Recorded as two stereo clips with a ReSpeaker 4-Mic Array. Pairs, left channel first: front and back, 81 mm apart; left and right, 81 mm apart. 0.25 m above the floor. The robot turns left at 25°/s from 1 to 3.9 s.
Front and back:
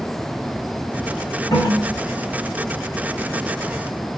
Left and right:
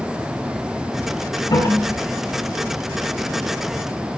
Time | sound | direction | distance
1.5 | a toilet flushing | 45° left | 5.5 m